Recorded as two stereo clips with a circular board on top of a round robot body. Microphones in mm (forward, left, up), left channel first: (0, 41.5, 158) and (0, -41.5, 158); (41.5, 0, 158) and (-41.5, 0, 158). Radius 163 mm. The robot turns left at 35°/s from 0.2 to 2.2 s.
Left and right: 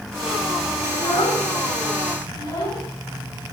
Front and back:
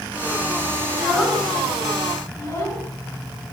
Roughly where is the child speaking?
Left.